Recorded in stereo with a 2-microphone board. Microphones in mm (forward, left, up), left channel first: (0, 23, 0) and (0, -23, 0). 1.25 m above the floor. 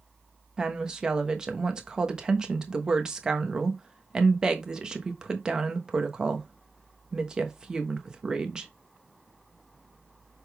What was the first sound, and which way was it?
A woman speaking, 15° right (ahead or behind).